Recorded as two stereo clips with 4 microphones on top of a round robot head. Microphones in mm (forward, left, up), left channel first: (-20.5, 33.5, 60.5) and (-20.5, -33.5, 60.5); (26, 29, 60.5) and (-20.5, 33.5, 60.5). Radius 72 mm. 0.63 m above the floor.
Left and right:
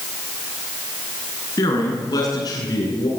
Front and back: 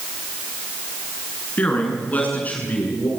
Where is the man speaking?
50° left, 8 m.